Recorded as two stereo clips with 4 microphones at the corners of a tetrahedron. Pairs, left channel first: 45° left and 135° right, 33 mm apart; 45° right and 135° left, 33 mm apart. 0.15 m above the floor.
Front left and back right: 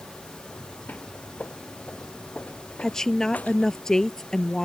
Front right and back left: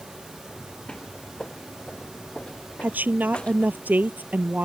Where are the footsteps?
15° left; by 3.8 s 10° left.